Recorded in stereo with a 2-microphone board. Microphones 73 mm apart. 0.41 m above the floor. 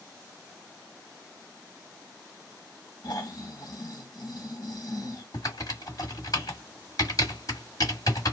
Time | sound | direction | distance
3.0 | snoring | 60° left (ahead or behind) | 1.5 m
5.3 | typing on a keyboard | 55° left (ahead or behind) | 1.8 m